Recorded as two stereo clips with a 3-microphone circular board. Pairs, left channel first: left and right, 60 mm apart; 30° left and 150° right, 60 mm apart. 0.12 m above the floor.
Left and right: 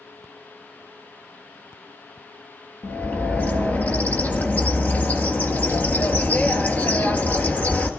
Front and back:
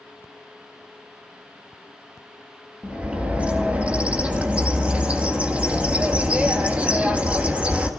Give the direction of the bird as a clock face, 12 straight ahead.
7 o'clock.